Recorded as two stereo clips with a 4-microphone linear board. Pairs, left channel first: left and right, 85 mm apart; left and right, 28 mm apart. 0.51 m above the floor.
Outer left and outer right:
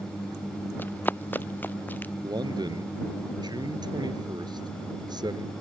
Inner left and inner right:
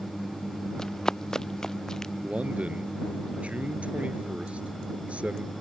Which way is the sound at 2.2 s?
55° right (ahead or behind).